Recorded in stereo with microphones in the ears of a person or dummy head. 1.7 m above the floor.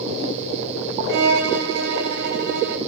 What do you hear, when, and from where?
1.1 s a violin: 70° right (ahead or behind), 3 m